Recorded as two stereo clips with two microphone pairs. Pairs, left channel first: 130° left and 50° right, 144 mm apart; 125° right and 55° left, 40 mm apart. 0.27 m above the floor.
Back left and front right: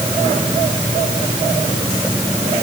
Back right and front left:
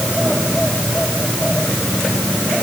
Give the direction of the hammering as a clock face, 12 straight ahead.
No hammering in this recording.